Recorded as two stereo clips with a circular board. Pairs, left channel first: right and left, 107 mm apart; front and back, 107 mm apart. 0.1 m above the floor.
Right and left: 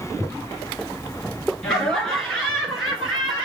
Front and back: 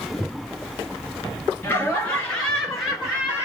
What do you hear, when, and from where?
1.6 s laughter: 15° right, 1.7 m; by 3.5 s 165° left, 1.7 m